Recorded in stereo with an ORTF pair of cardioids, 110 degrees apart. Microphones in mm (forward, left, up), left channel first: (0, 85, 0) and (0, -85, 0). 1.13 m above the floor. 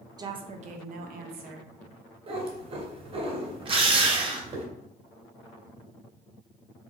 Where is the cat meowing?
40° right, 1.9 m.